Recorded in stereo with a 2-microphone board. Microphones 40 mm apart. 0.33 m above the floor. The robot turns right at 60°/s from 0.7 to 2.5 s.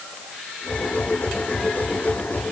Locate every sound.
Only background noise.